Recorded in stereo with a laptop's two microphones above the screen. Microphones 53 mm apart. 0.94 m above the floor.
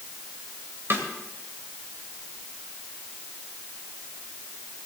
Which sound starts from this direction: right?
A snare drum, at 0.9 s.